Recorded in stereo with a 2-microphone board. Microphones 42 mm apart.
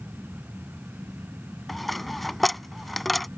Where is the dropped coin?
5° left (ahead or behind).